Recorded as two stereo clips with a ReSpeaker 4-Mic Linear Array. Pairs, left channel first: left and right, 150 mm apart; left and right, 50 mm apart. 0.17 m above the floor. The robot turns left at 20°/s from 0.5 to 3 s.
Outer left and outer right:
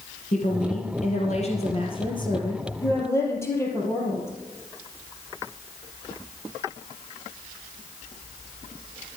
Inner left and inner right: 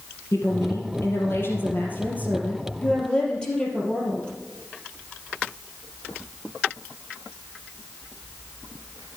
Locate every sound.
0.3 s a woman speaking: 70° left, 3.5 m; by 4.3 s 20° left, 3.5 m